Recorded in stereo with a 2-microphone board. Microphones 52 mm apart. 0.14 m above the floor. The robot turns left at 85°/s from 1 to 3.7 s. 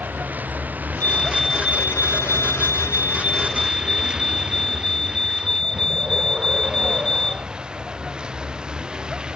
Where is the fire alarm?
35° left; by 7.5 s 170° left.